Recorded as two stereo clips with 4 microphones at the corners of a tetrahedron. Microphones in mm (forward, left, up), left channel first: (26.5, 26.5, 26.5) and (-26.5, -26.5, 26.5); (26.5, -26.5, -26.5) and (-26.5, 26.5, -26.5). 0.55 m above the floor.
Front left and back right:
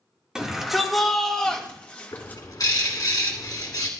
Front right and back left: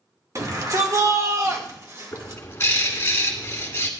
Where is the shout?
145° left, 1.7 m; by 2.4 s 100° left, 1.7 m.